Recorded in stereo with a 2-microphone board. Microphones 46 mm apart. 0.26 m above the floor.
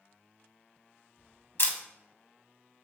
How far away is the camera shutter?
About 0.6 m.